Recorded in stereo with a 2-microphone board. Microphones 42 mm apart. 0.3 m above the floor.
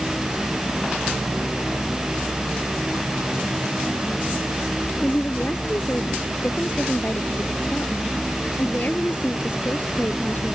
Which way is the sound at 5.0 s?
45° left (ahead or behind).